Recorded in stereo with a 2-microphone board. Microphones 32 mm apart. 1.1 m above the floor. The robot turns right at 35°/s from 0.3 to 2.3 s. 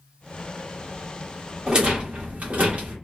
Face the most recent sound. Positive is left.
turn(degrees=-50)  # may be behind; listen again after turning